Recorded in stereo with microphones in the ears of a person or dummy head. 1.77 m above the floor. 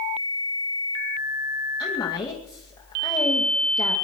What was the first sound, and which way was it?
A woman speaking, 25° left (ahead or behind).